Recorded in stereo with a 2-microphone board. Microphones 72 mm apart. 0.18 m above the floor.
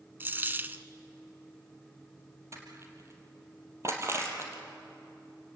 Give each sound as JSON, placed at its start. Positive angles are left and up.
{"t": 0.2, "sound": "a dropped coin", "side_deg": -30, "distance_m": 0.8}
{"t": 2.5, "sound": "crushing", "side_deg": -40, "distance_m": 3.5}